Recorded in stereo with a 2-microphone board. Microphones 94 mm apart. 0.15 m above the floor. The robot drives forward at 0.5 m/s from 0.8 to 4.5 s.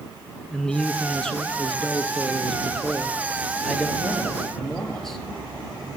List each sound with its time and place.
0.5 s a man speaking: 10° left (ahead or behind), 1.8 m; by 5.2 s 5° left (ahead or behind), 3.5 m